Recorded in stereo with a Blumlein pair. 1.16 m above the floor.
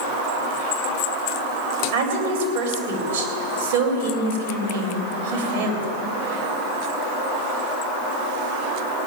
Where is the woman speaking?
55° right, 3 m.